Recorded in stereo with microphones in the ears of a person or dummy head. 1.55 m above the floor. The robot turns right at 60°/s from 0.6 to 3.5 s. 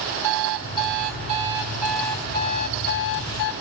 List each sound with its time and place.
0.2 s an alarm clock: 75° right, 2.5 m; by 3.5 s 100° left, 2.5 m